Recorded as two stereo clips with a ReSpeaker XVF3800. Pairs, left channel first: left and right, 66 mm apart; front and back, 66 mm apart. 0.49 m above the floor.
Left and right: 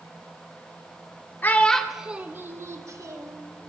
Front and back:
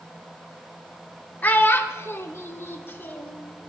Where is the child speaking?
50° left, 0.7 m; by 3.4 s 60° right, 1.4 m.